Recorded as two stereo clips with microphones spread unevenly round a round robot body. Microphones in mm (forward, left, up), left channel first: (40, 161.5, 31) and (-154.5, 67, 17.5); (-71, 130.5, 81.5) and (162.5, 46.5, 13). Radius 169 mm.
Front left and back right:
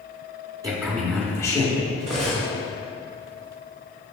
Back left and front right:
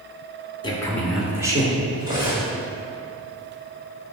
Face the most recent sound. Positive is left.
turn(degrees=-90)